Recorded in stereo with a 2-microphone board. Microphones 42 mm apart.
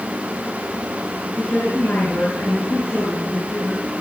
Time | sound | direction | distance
1.3 | a woman speaking | 60° left (ahead or behind) | 5.5 m